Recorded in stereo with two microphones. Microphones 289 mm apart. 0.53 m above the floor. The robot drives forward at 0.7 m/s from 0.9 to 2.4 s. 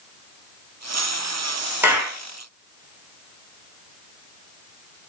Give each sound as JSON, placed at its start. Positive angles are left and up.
{"t": 1.8, "sound": "a clap", "side_deg": -5, "distance_m": 0.9}